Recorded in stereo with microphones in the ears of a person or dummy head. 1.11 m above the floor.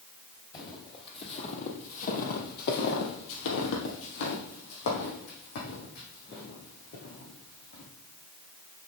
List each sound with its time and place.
0.5 s footsteps: 25° left (ahead or behind), 2.5 m; by 7.8 s 45° left (ahead or behind), 4.5 m